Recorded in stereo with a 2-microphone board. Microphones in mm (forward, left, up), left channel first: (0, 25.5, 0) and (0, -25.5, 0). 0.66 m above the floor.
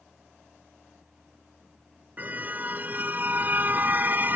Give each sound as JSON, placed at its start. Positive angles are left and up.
{"t": 2.2, "sound": "a car horn", "side_deg": -35}